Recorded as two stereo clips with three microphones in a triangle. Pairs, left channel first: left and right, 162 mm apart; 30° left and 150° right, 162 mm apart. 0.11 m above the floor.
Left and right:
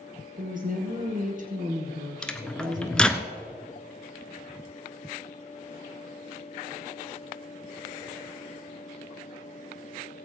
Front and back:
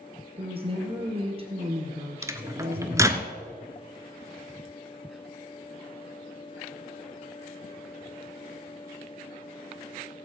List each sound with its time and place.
0.4 s a woman speaking: 100° right, 2.5 m
2.2 s a microwave: 170° left, 1.0 m